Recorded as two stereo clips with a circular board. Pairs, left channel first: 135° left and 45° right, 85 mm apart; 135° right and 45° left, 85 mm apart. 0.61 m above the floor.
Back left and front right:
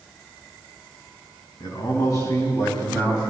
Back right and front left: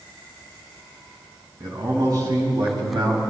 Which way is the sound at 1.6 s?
95° left.